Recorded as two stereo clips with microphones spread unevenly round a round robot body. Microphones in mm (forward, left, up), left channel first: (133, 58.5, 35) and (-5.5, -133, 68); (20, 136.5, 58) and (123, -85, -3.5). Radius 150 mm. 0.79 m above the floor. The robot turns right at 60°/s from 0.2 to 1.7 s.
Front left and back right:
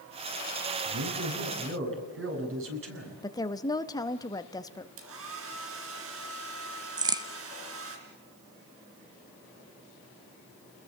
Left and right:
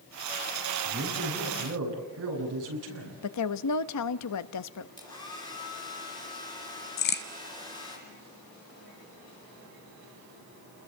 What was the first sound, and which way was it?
A man speaking, 145° right.